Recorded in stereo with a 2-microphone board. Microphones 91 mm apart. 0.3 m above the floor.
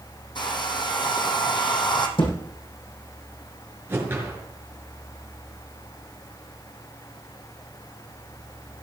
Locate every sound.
0.3 s a hair dryer: 55° left (ahead or behind), 2.5 m
2.2 s a thud: 70° left (ahead or behind), 7 m
3.9 s a whoosh: 25° right (ahead or behind), 5 m